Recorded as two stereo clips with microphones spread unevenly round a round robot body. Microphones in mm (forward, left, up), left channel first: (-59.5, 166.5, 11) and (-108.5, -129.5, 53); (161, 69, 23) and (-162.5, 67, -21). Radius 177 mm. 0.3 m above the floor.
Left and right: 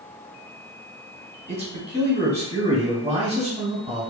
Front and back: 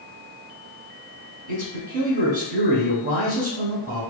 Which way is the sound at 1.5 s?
165° right.